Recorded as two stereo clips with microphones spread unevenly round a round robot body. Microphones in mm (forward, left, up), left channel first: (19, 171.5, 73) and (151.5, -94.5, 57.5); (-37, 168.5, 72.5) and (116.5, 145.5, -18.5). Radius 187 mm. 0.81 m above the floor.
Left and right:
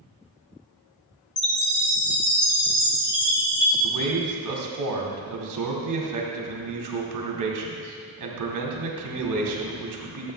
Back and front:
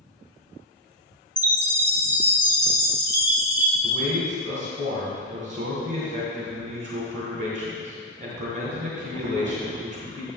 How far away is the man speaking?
About 2 m.